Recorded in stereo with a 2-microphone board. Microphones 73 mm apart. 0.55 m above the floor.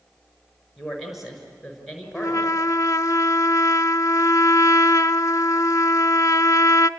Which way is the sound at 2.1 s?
50° left (ahead or behind).